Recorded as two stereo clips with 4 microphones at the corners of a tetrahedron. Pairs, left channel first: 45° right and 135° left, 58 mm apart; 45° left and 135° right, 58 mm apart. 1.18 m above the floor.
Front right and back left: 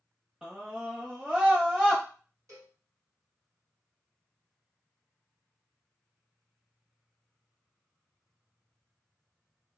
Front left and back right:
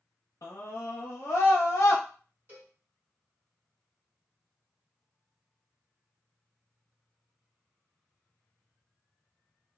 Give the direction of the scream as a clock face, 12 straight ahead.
10 o'clock.